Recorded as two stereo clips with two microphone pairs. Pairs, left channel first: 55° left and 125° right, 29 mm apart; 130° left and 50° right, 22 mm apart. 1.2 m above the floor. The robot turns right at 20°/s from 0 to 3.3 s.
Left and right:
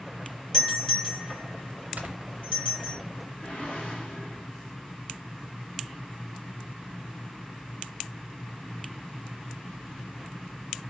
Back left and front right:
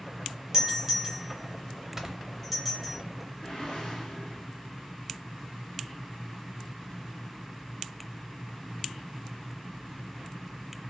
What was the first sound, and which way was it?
A doorbell, straight ahead.